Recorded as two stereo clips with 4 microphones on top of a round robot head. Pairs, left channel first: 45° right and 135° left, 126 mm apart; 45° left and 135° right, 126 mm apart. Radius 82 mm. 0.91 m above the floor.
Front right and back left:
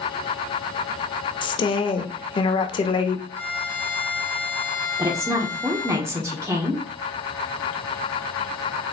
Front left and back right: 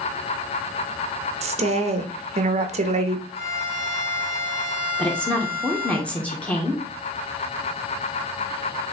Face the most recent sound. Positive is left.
turn(degrees=110)